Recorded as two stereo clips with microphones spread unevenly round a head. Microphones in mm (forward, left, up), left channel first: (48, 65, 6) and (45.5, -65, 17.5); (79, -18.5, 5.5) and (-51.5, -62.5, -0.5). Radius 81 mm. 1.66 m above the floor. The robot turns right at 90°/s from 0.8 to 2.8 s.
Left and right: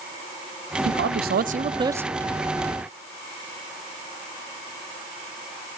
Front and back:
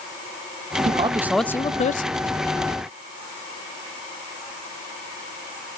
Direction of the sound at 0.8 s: 120° right.